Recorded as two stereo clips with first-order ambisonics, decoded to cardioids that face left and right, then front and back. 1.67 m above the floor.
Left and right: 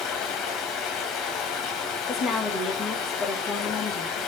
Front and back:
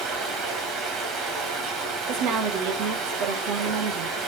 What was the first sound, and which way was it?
Running water, 135° left.